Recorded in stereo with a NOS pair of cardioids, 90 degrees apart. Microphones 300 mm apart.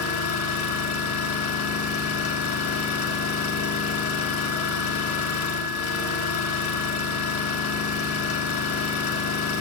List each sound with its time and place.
0.0 s an engine running: 70° left, 6 m